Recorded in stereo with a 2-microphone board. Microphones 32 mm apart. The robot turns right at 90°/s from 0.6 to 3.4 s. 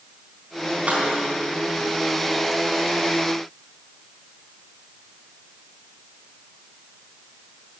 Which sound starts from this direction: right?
Keys jangling, at 0.9 s.